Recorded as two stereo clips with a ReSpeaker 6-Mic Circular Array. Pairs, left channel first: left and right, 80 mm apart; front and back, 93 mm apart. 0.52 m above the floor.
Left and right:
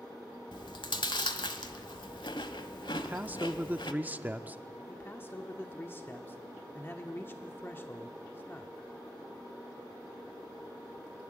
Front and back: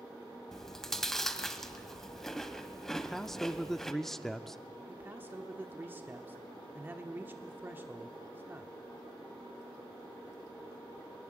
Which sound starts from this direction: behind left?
A man speaking, at 4.9 s.